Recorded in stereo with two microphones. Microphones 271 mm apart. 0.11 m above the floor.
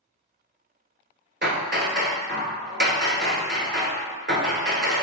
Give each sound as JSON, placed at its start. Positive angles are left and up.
{"t": 1.4, "sound": "hammering", "side_deg": -40, "distance_m": 0.6}